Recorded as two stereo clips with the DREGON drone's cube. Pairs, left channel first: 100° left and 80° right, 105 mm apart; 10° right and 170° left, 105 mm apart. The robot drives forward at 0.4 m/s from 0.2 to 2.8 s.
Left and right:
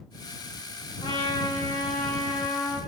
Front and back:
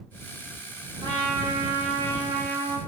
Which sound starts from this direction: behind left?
A trumpet, at 1.0 s.